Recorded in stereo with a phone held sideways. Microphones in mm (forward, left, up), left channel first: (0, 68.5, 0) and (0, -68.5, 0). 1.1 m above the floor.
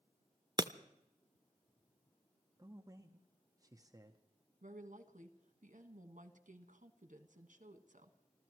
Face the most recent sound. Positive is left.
turn(degrees=-70)  # may be behind; listen again after turning